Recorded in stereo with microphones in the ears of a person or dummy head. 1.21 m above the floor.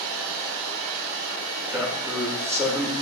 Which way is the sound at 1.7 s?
15° right (ahead or behind).